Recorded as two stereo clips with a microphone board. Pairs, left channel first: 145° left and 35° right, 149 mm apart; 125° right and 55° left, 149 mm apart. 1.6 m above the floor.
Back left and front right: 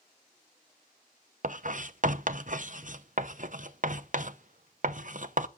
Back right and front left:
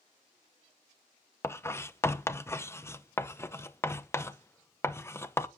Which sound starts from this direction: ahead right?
Writing, at 1.4 s.